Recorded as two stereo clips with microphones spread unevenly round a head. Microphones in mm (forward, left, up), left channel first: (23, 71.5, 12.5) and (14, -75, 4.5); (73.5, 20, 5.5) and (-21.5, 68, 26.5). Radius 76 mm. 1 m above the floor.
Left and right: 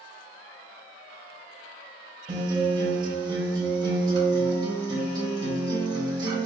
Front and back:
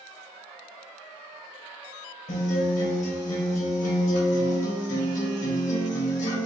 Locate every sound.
2.3 s a guitar: 30° right, 1.9 m